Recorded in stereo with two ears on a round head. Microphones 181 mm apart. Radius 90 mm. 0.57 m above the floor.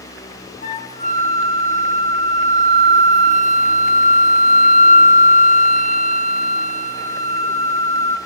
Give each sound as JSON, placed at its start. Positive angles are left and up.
{"t": 0.6, "sound": "a flute", "side_deg": 35, "distance_m": 0.6}